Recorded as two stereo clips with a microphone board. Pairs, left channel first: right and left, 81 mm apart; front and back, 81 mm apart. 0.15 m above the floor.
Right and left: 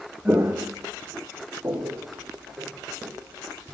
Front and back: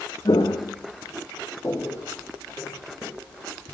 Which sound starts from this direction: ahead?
Footsteps, at 0.2 s.